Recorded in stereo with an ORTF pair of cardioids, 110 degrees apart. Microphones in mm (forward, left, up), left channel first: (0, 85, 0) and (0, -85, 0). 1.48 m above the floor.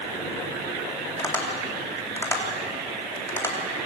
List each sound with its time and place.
1.2 s tapping: 15° left, 3.5 m